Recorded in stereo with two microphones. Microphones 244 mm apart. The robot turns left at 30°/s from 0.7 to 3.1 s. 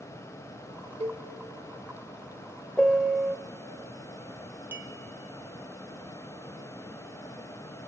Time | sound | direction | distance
1.0 | a cowbell | 25° right (ahead or behind) | 0.9 m
2.8 | a piano | 5° left (ahead or behind) | 0.6 m
4.7 | a clink | 10° right (ahead or behind) | 1.4 m